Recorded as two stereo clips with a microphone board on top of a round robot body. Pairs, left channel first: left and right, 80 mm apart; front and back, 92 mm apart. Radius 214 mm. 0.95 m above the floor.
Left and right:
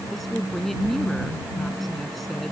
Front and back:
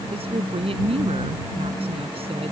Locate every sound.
0.1 s a woman speaking: straight behind